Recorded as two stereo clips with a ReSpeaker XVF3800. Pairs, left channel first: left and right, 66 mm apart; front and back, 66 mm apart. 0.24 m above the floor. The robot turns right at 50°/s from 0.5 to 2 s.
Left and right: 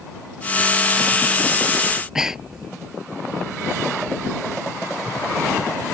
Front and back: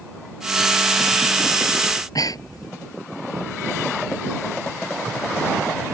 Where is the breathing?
15° right; by 2.7 s 10° right.